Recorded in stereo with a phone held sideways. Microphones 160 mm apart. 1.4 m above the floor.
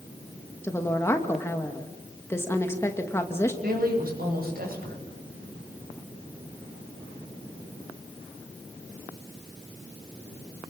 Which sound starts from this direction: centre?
A woman speaking, at 0.6 s.